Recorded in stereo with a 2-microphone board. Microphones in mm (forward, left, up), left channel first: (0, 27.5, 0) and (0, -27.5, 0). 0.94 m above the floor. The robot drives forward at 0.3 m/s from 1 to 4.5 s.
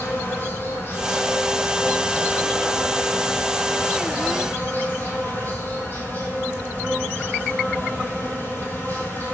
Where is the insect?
45° left (ahead or behind), 3.5 m; by 9.3 s 35° left (ahead or behind), 4 m.